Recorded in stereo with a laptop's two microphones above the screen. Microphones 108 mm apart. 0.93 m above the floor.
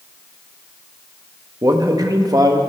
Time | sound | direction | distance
1.6 | a man speaking | 35° right (ahead or behind) | 1.4 m